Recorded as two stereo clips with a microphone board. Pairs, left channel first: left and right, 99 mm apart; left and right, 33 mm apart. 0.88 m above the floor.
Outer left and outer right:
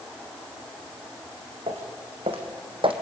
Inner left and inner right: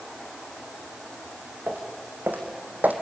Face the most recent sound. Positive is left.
turn(degrees=-60)  # may be behind; listen again after turning